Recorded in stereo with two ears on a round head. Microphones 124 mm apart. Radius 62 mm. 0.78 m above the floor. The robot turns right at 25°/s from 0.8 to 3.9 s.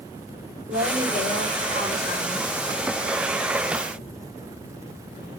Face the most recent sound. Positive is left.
turn(degrees=15)